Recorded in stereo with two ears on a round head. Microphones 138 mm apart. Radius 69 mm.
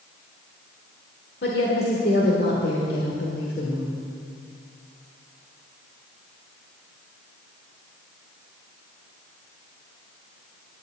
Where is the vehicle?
I don't hear a vehicle.